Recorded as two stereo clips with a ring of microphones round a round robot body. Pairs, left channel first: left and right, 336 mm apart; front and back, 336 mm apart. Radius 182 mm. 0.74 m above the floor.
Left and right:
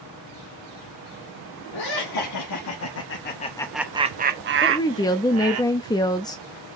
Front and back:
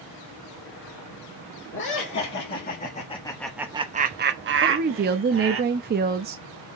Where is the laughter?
55° left, 2 m; by 5.6 s 130° right, 2 m.